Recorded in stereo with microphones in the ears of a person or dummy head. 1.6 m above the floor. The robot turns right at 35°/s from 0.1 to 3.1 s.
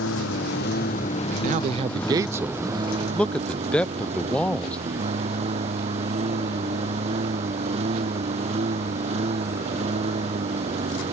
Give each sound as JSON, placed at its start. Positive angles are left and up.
{"t": 0.0, "sound": "a lawn mower", "azimuth_deg": 105}
{"t": 1.3, "sound": "a man speaking", "azimuth_deg": -55}